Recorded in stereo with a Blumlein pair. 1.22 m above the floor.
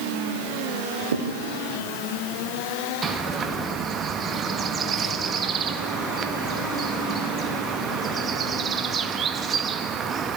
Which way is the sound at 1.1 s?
65° right.